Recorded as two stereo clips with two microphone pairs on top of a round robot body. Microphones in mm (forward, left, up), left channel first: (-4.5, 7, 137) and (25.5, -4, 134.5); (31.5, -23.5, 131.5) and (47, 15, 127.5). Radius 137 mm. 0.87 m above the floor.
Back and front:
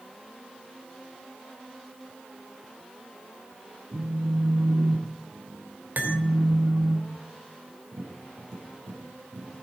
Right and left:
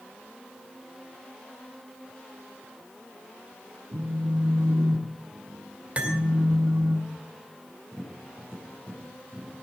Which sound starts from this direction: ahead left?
A phone buzzing, at 3.9 s.